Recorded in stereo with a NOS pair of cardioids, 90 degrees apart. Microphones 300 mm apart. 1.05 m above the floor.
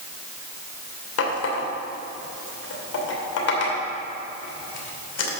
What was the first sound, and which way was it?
A running tap, 55° left.